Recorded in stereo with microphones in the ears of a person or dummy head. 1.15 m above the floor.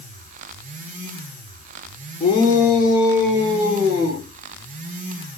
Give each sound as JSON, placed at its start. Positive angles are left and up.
{"t": 2.2, "sound": "a shout", "side_deg": 30, "distance_m": 0.8}